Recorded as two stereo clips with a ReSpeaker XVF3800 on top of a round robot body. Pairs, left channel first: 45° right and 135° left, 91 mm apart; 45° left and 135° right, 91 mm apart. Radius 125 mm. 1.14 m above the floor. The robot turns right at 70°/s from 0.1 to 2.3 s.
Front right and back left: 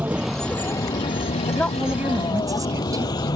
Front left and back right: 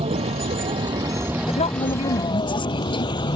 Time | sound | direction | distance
0.0 | a vehicle | 150° right | ?
1.5 | a woman speaking | 25° left | ?